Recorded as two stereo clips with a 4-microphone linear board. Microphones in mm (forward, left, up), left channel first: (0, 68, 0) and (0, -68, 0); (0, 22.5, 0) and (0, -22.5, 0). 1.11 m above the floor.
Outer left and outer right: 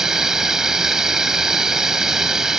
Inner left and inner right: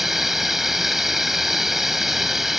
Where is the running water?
5° right (ahead or behind).